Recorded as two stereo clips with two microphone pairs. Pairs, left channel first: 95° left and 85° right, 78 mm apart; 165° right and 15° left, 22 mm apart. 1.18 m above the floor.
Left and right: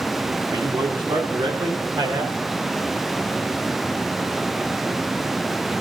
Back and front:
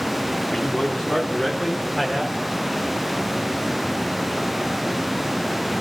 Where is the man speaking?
115° right, 2 m; by 2.4 s 75° right, 3 m.